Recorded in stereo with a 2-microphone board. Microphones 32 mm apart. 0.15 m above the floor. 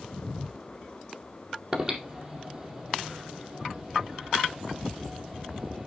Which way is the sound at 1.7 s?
25° right (ahead or behind).